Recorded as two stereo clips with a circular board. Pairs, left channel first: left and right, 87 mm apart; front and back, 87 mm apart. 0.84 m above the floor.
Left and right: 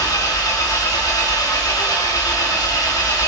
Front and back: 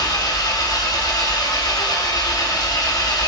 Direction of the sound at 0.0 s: 45° left.